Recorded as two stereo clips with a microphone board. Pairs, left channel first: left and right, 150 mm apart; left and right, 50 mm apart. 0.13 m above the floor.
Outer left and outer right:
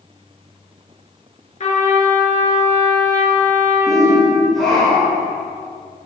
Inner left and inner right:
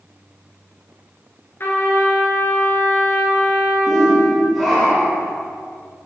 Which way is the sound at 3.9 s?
Centre (ahead or behind).